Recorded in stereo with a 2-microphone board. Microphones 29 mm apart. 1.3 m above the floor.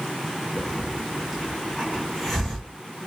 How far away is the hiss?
About 1.8 m.